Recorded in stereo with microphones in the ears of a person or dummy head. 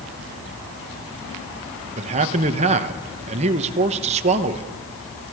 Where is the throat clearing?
No throat clearing in this recording.